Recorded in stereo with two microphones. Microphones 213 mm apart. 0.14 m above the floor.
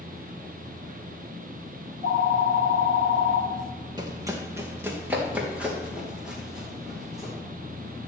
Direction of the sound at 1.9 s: 25° right (ahead or behind).